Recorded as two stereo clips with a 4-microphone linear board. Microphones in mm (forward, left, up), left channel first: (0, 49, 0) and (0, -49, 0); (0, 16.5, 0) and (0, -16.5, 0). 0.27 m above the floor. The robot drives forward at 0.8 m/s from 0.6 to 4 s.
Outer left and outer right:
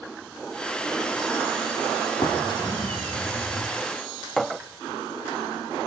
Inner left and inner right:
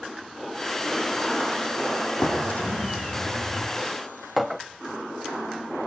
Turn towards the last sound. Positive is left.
turn(degrees=0)  # may be behind; listen again after turning